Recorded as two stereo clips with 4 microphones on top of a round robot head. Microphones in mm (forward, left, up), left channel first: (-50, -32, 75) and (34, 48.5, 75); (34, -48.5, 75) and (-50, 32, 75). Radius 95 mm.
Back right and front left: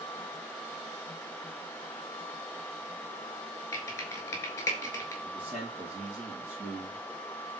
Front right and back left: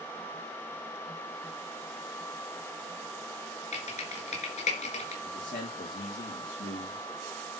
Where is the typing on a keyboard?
65° right, 4.5 m.